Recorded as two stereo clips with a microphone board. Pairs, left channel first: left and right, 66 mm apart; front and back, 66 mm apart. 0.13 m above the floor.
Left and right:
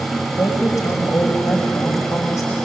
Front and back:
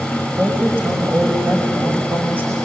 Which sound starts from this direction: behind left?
A woman speaking, at 0.4 s.